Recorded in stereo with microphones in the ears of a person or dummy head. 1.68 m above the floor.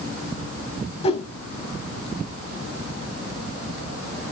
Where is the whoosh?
30° left (ahead or behind), 1.1 m.